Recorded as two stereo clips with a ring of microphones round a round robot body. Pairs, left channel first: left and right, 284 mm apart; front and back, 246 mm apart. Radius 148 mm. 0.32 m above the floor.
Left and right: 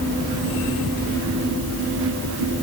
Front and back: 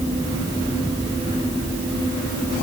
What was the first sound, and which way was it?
Only background noise.